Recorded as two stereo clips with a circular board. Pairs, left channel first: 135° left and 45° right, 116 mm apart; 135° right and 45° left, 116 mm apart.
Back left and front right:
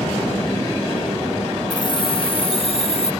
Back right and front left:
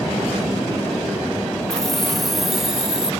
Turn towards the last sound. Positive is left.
turn(degrees=130)